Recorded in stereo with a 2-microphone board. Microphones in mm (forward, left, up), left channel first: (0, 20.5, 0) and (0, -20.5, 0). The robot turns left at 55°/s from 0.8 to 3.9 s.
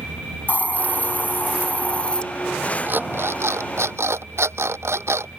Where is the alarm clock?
45° right; by 5.4 s 100° right.